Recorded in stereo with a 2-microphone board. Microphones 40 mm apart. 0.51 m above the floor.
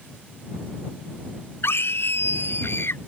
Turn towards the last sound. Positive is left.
turn(degrees=80)